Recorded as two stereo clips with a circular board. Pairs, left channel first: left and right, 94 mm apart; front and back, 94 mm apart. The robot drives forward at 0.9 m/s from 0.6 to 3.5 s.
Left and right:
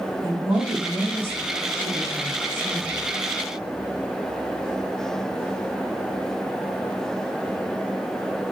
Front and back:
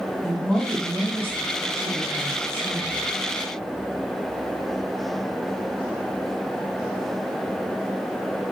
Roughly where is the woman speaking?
Right.